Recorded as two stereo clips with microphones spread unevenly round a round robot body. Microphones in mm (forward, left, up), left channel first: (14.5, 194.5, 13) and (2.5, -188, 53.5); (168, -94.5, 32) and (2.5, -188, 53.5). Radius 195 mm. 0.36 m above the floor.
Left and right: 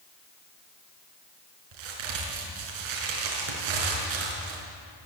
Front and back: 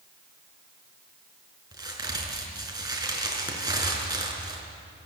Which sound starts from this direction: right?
A crack, at 1.7 s.